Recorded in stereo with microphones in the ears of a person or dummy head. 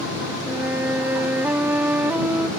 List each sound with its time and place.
0.5 s a flute: 10° right (ahead or behind)